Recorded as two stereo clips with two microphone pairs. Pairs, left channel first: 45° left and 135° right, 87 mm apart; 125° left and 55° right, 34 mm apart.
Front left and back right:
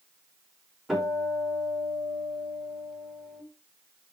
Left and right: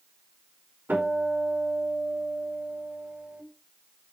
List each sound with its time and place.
0.9 s a guitar: 50° right, 4.5 m